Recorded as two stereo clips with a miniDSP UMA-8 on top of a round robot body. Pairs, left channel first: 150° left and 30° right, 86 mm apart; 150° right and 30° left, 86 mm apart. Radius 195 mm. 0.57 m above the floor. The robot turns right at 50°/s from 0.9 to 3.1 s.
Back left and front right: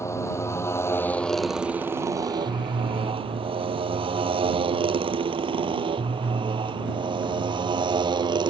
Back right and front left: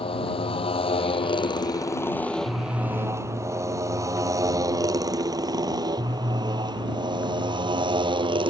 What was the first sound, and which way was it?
A motorcycle, 150° right.